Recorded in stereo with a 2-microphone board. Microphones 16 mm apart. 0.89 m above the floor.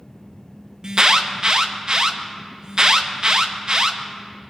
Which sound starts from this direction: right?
An alarm, at 0.8 s.